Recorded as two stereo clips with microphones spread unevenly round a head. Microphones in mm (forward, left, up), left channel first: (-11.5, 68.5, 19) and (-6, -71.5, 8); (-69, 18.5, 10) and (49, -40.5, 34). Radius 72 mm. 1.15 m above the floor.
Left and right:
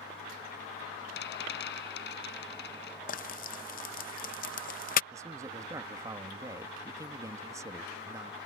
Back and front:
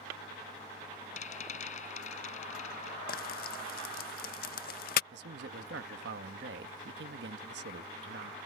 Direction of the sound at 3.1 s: 125° left.